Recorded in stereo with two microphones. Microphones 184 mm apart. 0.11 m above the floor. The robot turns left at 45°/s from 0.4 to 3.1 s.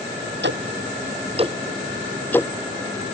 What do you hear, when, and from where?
0.4 s ticking: 65° right (ahead or behind); by 2.5 s 15° left (ahead or behind)